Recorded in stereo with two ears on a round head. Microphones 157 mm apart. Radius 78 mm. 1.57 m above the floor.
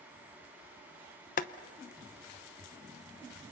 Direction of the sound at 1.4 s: 45° left (ahead or behind).